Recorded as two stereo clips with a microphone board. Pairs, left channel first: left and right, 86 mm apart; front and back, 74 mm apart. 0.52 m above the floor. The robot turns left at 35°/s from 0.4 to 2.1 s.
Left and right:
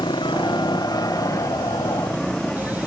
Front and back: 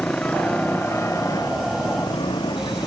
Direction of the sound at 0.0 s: 75° left.